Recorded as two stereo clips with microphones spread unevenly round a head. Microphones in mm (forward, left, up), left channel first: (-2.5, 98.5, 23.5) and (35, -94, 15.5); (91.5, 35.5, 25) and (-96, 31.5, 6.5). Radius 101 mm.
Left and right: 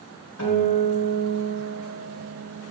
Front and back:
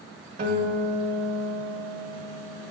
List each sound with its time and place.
0.4 s a guitar: 135° left, 1.2 m